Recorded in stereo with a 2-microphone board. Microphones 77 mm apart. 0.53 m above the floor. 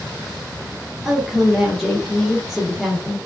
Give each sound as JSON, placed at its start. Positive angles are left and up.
{"t": 1.1, "sound": "a woman speaking", "side_deg": 0, "distance_m": 0.9}